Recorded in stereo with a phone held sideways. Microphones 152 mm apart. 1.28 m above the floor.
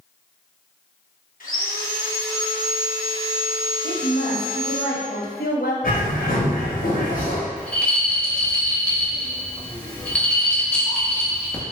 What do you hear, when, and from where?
1.4 s sawing: 60° left (ahead or behind), 1.1 m
3.8 s a woman speaking: 85° left, 0.8 m
5.8 s a bird: 65° left (ahead or behind), 1.0 m
7.6 s a rattle: 5° left (ahead or behind), 0.7 m